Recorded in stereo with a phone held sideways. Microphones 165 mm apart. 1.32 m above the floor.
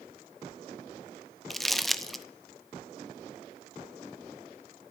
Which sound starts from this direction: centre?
Crumpling, at 1.5 s.